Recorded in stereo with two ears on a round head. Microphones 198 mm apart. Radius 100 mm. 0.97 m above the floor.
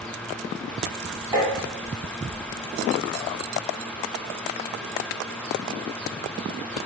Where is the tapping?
15° right (ahead or behind), 1.1 m.